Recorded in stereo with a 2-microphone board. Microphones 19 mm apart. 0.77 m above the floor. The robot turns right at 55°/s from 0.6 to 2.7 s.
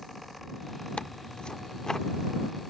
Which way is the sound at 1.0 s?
95° left.